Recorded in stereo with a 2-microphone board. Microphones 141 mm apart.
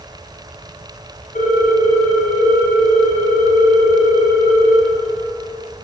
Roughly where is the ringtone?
Left.